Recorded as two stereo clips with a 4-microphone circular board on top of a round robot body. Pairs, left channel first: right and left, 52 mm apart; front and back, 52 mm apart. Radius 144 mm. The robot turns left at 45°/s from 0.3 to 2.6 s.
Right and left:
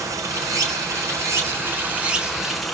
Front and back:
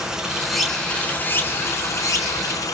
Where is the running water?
100° left, 1.9 m; by 2.8 s straight ahead, 1.9 m.